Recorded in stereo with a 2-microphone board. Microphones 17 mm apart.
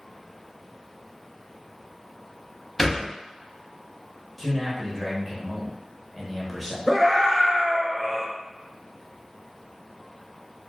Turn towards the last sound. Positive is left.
turn(degrees=-25)  # may be behind; listen again after turning